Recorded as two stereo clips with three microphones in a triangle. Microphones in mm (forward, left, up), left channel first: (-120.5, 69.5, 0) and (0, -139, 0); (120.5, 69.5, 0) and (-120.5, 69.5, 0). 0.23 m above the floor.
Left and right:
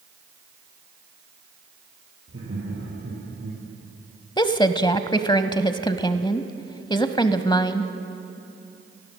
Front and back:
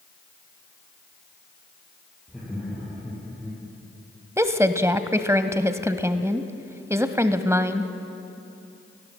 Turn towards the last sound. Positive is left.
turn(degrees=130)